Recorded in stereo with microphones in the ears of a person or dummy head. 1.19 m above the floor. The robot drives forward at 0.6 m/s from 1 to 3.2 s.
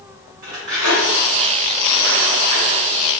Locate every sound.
0.4 s cutlery clinking: 50° right (ahead or behind), 1.7 m; by 3.2 s 30° right (ahead or behind), 2.5 m